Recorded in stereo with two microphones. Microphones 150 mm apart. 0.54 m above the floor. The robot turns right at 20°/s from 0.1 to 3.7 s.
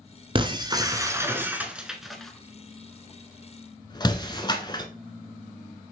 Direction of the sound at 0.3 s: 35° right (ahead or behind).